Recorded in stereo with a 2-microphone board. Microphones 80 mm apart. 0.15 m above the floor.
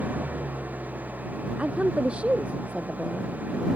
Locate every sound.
0.0 s an engine running: 20° right (ahead or behind)
1.6 s a woman speaking: 15° right (ahead or behind)